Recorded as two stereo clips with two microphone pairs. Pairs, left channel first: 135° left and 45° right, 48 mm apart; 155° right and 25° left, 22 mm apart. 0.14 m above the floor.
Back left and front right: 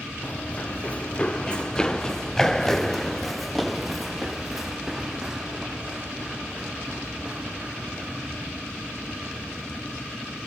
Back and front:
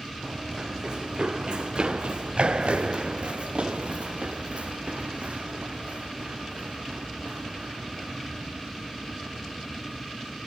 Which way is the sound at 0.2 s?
75° left.